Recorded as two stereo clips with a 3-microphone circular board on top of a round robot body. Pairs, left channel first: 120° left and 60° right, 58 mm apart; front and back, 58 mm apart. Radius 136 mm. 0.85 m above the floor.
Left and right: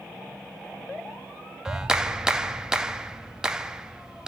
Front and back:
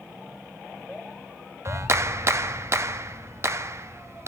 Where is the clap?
140° right, 1.4 m.